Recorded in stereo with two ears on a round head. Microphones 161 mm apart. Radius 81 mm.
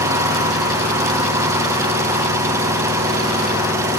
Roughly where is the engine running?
Centre.